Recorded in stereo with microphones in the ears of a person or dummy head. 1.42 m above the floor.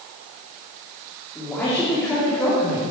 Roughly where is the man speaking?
Centre.